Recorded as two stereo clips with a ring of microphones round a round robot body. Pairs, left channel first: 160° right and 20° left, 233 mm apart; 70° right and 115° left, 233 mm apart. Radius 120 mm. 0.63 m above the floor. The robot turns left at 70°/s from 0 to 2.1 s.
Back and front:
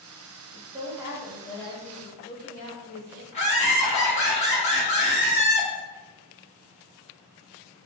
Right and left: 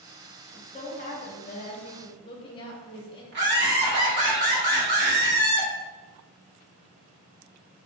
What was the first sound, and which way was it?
A woman speaking, 10° right.